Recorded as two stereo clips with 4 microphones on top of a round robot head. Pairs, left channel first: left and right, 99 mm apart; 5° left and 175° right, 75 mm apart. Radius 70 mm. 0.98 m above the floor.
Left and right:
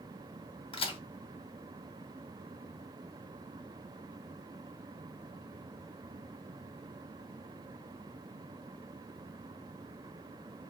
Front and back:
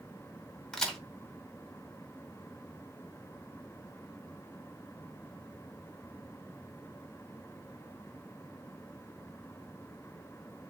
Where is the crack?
85° left, 1.9 m.